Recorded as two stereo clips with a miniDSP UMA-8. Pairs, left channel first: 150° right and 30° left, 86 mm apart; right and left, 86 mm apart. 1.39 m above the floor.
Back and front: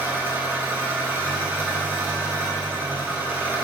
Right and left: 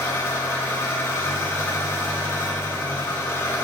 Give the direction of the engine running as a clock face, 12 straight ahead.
1 o'clock.